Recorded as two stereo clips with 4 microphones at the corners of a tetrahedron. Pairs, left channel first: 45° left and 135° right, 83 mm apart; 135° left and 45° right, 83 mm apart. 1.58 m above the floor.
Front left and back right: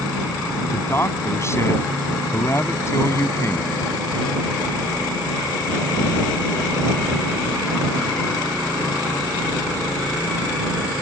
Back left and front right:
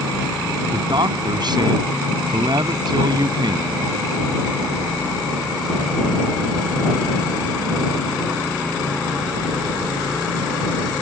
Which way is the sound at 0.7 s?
15° right.